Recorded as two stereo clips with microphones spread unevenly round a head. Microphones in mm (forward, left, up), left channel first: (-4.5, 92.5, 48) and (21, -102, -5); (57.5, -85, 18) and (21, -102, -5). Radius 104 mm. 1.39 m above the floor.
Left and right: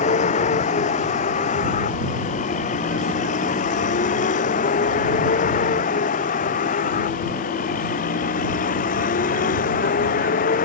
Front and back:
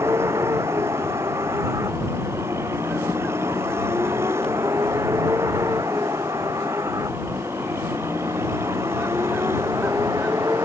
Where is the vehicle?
155° left; by 10.7 s 150° left.